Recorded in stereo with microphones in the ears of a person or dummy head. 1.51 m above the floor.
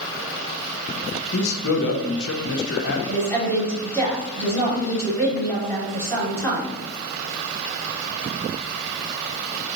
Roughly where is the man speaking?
Left.